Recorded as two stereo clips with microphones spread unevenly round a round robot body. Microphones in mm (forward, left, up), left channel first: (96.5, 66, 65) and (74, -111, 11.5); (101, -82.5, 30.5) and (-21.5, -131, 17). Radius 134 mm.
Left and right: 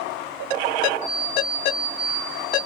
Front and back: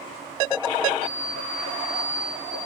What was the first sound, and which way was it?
An alarm clock, 145° left.